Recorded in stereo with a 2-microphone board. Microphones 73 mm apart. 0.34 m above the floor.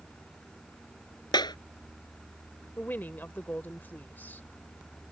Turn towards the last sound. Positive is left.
turn(degrees=30)  # may be behind; listen again after turning